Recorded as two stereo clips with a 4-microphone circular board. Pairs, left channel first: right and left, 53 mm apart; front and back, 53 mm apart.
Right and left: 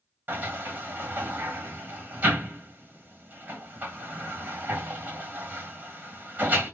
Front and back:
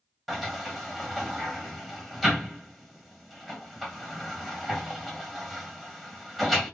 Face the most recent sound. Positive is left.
turn(degrees=90)